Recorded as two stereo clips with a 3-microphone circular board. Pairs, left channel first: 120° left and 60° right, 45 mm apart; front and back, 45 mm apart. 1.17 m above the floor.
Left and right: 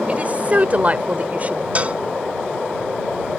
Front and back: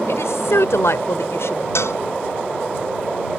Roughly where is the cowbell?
Ahead.